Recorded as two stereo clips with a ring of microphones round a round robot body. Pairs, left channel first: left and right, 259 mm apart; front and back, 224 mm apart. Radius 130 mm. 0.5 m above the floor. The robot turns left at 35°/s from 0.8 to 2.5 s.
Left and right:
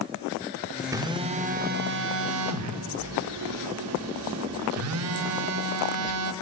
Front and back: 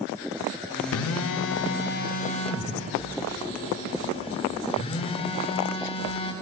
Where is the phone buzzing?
10° right, 0.6 m; by 6.3 s 70° right, 0.6 m.